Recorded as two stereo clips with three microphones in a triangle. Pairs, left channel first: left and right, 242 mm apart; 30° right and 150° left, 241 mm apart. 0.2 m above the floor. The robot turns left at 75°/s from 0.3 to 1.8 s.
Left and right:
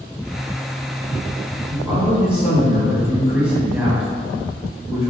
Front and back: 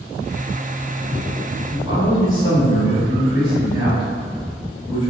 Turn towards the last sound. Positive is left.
turn(degrees=-165)